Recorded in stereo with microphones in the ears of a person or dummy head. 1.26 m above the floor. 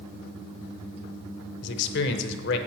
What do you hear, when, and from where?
1.6 s a man speaking: 70° left (ahead or behind), 0.8 m